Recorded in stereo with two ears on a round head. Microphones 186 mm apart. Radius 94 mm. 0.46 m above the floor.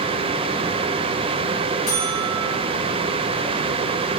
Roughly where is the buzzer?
Left.